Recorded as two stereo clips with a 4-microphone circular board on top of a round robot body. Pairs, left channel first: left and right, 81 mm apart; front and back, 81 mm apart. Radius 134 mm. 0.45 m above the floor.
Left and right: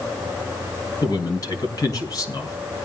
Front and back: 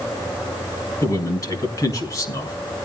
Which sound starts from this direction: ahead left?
A man speaking, at 1.0 s.